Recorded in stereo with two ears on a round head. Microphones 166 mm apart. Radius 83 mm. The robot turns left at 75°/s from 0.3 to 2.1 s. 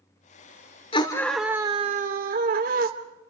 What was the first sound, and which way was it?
A scream, 35° left.